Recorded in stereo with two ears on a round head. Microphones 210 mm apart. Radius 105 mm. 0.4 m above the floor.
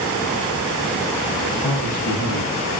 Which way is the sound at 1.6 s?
60° left (ahead or behind).